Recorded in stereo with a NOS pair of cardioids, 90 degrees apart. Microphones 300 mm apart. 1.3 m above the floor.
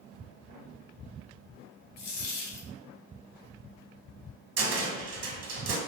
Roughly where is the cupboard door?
Ahead right.